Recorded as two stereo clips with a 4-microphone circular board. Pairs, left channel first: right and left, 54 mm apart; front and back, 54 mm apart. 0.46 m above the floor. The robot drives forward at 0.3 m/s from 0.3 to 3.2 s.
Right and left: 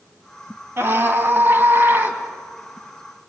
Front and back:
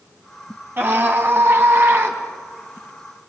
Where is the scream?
130° left, 3 m; by 2.2 s 135° left, 3.5 m.